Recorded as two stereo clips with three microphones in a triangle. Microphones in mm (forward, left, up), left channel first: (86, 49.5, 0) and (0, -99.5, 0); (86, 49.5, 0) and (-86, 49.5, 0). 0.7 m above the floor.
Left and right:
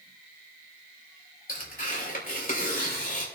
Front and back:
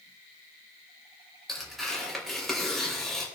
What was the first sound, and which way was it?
Tearing paper, 90° left.